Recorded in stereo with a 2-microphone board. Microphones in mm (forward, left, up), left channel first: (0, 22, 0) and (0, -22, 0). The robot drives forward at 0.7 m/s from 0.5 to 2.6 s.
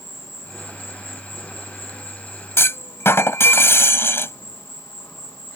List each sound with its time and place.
0.0 s an insect: 75° left (ahead or behind); by 5.6 s 60° left (ahead or behind)
2.6 s a clunk: 70° left (ahead or behind)